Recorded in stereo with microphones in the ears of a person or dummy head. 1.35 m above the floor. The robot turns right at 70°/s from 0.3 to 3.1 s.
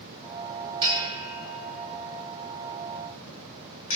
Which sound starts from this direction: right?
A bell, at 0.8 s.